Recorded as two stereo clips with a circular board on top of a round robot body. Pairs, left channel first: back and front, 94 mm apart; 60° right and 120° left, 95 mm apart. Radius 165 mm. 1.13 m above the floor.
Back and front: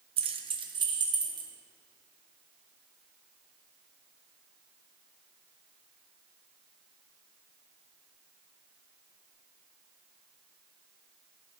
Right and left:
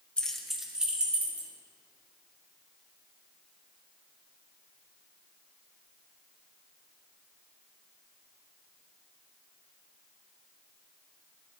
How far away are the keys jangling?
About 0.7 m.